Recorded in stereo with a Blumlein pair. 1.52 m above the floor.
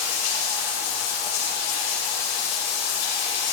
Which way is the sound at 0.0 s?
50° left.